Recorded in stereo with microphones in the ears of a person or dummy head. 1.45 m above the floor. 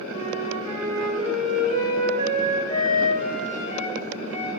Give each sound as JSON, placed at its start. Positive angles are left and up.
{"t": 0.1, "sound": "a flute", "side_deg": 45, "distance_m": 5.0}